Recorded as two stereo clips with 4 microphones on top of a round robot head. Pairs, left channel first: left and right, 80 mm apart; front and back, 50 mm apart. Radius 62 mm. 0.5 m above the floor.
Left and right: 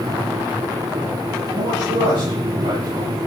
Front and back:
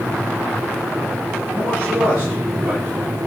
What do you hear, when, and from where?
1.5 s a man speaking: 115° right, 8.5 m